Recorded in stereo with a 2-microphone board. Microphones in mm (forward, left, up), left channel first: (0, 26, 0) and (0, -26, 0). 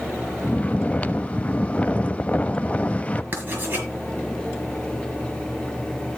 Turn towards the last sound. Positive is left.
turn(degrees=-40)  # may be behind; listen again after turning